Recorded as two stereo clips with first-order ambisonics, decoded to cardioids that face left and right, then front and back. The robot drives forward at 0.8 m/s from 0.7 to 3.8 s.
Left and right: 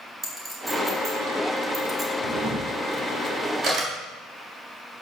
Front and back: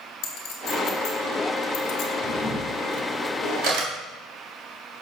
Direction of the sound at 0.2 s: 5° right.